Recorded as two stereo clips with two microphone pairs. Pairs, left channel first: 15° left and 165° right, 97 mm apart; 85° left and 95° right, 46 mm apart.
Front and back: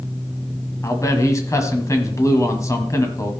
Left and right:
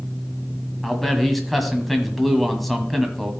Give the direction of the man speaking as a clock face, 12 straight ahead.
12 o'clock.